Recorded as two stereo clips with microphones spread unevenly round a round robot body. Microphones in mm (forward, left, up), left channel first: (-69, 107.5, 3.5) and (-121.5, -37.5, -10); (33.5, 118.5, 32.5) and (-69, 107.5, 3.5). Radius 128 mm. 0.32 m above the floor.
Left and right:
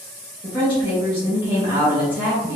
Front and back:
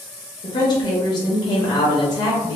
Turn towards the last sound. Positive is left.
turn(degrees=30)